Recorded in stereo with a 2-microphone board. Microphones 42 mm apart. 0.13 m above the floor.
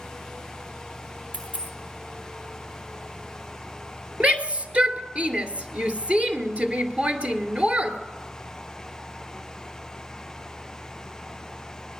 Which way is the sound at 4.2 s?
30° right (ahead or behind).